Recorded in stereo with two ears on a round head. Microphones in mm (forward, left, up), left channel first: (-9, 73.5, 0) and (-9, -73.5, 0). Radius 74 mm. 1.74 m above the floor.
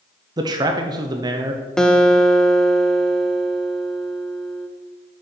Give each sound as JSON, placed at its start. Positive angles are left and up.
{"t": 0.4, "sound": "a man speaking", "side_deg": -25, "distance_m": 0.7}
{"t": 1.8, "sound": "a guitar", "side_deg": 5, "distance_m": 0.7}